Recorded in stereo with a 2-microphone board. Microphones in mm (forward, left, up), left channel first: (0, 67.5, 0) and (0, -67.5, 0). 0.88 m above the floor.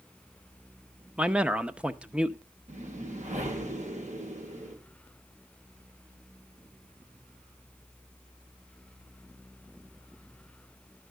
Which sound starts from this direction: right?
A whoosh, at 2.7 s.